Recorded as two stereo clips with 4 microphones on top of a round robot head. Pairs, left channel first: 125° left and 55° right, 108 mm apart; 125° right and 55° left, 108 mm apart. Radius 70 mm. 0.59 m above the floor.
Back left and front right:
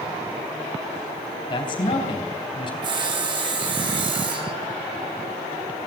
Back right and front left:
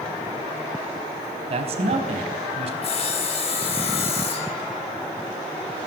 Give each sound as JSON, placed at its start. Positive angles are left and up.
{"t": 1.5, "sound": "a man speaking", "azimuth_deg": 85, "distance_m": 4.0}
{"t": 2.8, "sound": "sawing", "azimuth_deg": -95, "distance_m": 3.5}